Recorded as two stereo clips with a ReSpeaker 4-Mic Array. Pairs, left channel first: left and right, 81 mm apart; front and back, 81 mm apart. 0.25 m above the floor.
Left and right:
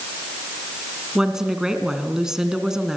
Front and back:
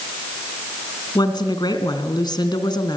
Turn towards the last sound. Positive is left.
turn(degrees=-5)